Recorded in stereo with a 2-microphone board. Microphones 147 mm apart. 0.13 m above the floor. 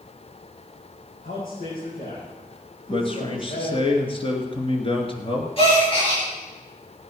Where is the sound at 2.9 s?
40° left (ahead or behind), 2.5 m.